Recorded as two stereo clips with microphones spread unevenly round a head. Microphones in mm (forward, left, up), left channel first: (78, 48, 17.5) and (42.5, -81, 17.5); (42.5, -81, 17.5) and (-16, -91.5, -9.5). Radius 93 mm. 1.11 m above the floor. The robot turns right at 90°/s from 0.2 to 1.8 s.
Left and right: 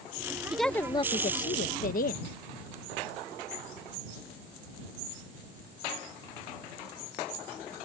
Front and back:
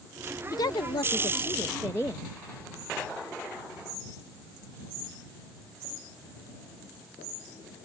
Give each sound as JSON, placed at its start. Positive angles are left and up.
{"t": 0.5, "sound": "a woman speaking", "azimuth_deg": -20}